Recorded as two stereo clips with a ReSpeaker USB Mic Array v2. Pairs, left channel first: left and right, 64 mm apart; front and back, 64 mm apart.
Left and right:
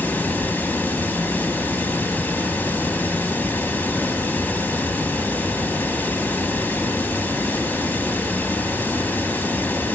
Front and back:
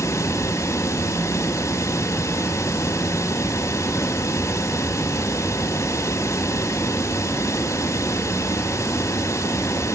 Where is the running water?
30° left, 1.0 m.